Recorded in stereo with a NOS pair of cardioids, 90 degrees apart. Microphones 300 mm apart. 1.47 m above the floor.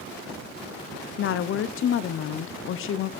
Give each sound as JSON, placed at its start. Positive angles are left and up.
{"t": 1.2, "sound": "a woman speaking", "azimuth_deg": 45, "distance_m": 0.5}